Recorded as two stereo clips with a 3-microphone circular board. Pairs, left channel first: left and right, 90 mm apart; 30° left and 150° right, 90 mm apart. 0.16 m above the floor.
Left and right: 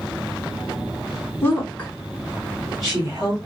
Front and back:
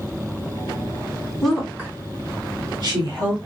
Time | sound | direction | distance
1.4 | a woman speaking | 110° left | 1.3 m